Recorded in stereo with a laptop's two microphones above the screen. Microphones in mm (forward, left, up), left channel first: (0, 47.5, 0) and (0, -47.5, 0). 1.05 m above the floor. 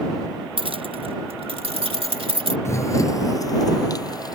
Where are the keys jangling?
65° right (ahead or behind); by 2.5 s 75° right (ahead or behind).